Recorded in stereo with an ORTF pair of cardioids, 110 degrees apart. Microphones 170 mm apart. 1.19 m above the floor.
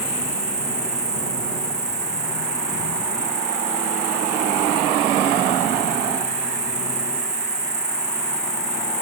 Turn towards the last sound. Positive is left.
turn(degrees=-20)